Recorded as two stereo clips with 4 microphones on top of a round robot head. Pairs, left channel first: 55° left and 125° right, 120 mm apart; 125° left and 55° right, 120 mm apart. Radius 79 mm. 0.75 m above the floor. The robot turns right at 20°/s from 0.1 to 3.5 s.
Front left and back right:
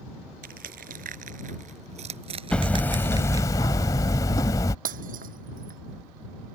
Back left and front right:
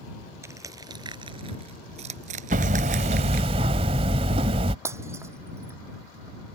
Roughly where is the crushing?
Behind right.